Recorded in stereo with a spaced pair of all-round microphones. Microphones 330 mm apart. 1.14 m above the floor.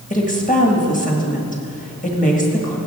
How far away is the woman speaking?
About 1.7 m.